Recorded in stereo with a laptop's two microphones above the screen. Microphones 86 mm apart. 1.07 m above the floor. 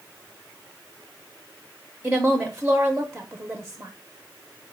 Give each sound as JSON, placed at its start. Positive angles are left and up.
{"t": 2.0, "sound": "a woman speaking", "side_deg": -15, "distance_m": 0.6}